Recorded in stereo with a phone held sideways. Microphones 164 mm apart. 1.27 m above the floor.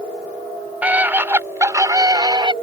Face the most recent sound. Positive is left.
turn(degrees=-30)  # may be behind; listen again after turning